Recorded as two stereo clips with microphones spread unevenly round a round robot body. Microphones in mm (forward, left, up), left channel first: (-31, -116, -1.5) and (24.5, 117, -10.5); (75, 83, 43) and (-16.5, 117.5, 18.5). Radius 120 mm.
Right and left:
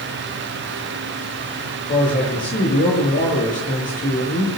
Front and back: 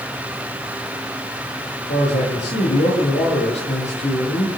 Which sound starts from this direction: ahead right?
A man speaking, at 1.9 s.